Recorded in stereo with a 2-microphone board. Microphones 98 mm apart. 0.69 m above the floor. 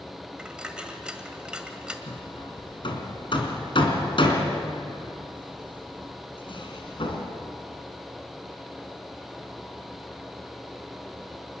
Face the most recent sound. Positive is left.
turn(degrees=60)  # may be behind; listen again after turning